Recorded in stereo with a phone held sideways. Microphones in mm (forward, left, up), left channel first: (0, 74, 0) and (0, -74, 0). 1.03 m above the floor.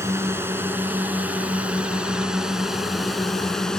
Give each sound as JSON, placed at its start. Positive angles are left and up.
{"t": 0.0, "sound": "a drone", "side_deg": -15}